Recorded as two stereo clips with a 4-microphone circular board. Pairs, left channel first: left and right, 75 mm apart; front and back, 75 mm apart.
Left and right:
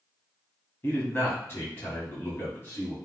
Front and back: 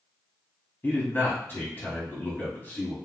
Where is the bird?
I don't hear a bird.